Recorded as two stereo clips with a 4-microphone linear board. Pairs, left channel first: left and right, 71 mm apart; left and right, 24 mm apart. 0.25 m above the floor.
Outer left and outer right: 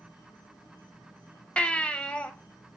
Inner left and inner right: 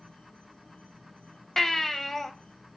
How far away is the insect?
About 5 m.